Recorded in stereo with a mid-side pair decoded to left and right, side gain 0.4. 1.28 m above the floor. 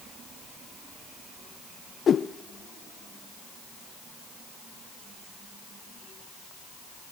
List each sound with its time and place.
2.1 s a whoosh: 55° left, 1.2 m